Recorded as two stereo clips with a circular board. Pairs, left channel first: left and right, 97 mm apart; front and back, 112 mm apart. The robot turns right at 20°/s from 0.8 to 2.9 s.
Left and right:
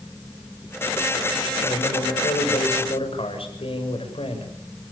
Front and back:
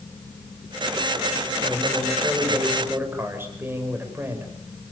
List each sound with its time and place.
1.6 s a man speaking: 85° left, 6.5 m; by 4.5 s 110° left, 6.5 m